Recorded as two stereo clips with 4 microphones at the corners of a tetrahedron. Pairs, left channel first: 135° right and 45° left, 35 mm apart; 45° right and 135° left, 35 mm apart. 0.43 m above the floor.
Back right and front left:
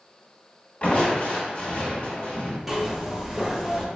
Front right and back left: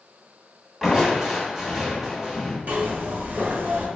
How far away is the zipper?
About 0.7 m.